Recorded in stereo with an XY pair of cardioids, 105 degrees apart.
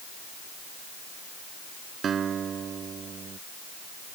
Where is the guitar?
50° right.